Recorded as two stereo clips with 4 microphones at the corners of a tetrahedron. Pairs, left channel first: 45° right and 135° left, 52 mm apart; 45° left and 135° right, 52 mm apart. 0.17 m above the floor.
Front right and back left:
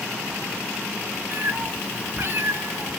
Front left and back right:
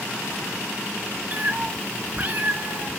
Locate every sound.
1.3 s a cat meowing: 175° left, 0.9 m